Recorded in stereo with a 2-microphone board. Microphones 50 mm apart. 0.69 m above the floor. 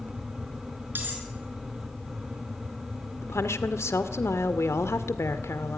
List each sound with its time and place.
0.9 s cutlery clinking: 45° right (ahead or behind), 6.5 m
3.2 s a woman speaking: 65° left (ahead or behind), 1.9 m